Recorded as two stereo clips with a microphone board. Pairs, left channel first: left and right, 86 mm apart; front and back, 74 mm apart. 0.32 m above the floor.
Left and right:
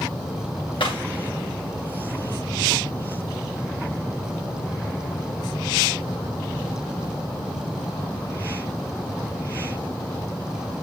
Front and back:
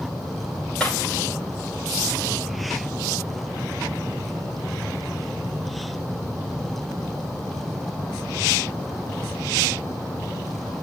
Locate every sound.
0.8 s breaking glass: 80° left, 9.5 m